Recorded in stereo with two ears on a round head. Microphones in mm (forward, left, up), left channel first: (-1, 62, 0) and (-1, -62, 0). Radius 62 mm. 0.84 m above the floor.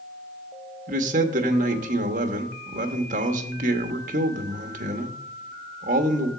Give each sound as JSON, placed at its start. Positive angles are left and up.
{"t": 0.9, "sound": "a man speaking", "side_deg": -65, "distance_m": 1.0}